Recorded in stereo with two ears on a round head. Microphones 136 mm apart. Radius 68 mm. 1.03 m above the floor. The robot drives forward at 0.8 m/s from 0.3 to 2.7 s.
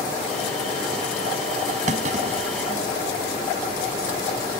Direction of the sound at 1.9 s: 50° right (ahead or behind).